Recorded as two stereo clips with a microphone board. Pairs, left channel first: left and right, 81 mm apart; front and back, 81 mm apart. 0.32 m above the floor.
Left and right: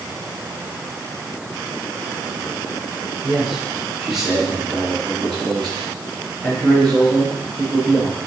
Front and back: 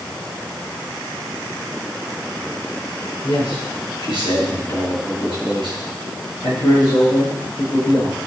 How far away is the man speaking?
About 4 m.